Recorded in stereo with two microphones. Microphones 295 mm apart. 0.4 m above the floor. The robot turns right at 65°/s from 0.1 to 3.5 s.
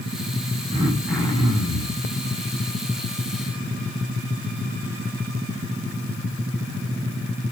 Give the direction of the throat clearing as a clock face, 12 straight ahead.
1 o'clock.